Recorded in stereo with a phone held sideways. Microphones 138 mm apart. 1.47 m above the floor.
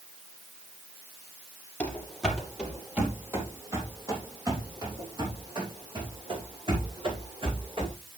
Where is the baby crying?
No baby crying in this recording.